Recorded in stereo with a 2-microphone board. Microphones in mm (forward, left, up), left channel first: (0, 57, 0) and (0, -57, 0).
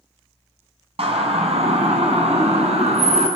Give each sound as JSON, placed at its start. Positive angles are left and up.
{"t": 1.0, "sound": "a siren", "side_deg": -60, "distance_m": 4.0}